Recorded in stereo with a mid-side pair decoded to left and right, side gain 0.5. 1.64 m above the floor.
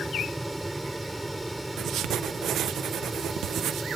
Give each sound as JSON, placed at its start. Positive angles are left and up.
{"t": 0.0, "sound": "a fan", "azimuth_deg": -10}
{"t": 1.8, "sound": "writing", "azimuth_deg": -65}